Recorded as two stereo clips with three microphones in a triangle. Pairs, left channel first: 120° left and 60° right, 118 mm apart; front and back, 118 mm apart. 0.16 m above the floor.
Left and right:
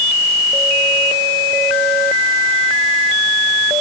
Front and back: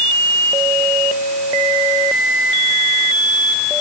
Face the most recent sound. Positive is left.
No sound to turn to.